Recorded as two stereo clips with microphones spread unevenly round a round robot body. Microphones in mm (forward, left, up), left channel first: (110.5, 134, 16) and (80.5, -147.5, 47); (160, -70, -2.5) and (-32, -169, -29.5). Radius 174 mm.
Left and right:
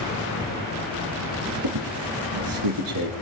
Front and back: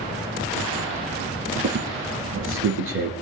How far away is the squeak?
About 3.5 m.